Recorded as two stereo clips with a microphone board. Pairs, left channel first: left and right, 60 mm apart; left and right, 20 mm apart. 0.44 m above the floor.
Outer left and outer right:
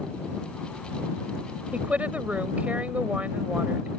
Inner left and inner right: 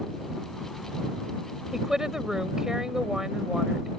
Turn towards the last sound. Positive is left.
turn(degrees=-25)  # may be behind; listen again after turning